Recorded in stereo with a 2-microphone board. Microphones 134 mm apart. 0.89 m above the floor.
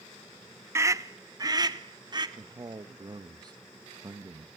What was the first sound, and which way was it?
A scream, 20° right (ahead or behind).